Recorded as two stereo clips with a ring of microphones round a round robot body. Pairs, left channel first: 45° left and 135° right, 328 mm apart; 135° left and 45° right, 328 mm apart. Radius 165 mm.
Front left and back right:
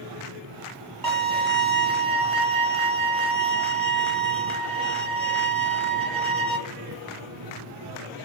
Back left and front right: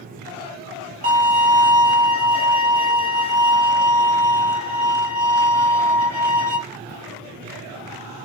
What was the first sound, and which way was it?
A violin, 110° right.